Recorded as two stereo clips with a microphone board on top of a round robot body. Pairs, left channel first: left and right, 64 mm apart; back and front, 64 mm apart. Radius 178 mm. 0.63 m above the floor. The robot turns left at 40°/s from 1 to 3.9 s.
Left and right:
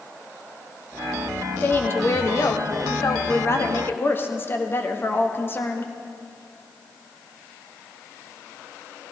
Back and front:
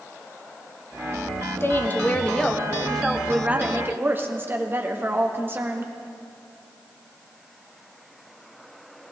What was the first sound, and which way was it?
A woman speaking, 140° left.